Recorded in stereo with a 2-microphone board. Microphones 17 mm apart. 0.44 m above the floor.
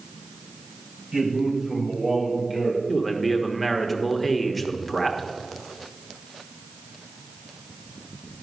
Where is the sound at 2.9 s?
Centre (ahead or behind), 0.8 m.